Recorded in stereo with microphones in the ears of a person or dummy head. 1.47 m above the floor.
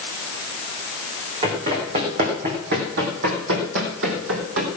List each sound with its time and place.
1.4 s running footsteps: 30° right (ahead or behind), 4 m; by 4.7 s 65° right (ahead or behind), 3.5 m